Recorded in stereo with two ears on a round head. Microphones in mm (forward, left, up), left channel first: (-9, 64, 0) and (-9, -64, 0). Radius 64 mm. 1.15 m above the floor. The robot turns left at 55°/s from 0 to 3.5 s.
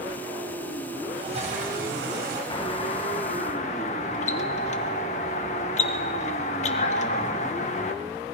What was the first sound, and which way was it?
A toilet flushing, 35° right.